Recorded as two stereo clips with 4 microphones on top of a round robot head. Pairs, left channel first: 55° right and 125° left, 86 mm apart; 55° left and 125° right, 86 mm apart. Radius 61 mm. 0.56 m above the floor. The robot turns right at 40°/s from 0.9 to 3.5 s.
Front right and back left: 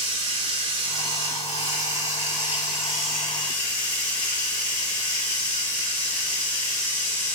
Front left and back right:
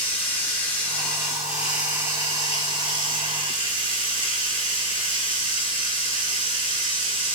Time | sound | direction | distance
0.0 | running water | 130° left | 1.5 m